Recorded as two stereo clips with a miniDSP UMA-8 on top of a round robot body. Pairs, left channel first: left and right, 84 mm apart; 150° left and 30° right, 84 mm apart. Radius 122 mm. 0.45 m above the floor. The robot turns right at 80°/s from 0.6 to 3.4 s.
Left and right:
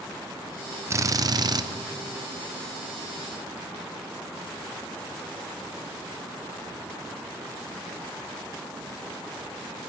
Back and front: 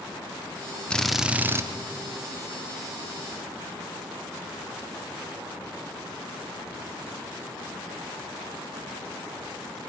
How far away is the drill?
About 0.7 m.